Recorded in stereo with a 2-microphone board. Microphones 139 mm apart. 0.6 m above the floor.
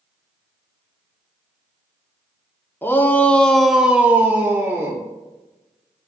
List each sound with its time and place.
2.8 s a shout: 15° left (ahead or behind), 1.0 m; by 5.0 s 20° right (ahead or behind), 1.5 m